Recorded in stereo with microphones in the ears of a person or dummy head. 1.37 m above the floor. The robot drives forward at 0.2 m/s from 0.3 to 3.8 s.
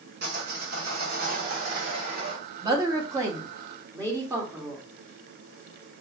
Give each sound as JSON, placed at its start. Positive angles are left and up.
{"t": 0.2, "sound": "sawing", "side_deg": -60, "distance_m": 1.2}
{"t": 2.6, "sound": "a woman speaking", "side_deg": -25, "distance_m": 0.8}